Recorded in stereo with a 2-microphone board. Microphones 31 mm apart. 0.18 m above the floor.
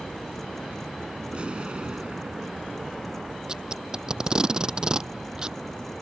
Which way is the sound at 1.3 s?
35° right (ahead or behind).